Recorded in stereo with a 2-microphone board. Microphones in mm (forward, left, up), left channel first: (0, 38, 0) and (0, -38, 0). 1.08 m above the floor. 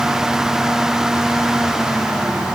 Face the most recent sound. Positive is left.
No sound to turn to.